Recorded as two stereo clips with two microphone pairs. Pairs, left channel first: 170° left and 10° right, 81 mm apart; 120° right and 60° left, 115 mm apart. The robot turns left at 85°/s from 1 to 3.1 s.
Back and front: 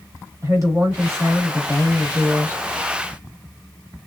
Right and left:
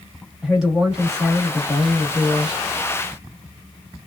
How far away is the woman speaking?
About 1.6 m.